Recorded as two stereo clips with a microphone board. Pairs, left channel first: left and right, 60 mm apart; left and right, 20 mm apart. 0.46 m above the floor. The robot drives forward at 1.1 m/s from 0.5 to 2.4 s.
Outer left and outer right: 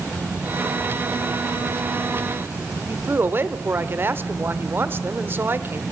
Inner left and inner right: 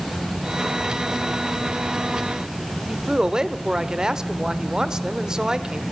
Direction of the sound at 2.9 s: 35° right (ahead or behind).